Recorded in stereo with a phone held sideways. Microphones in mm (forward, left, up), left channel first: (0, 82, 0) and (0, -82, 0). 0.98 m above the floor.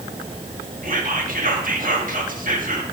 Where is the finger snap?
No finger snap in this recording.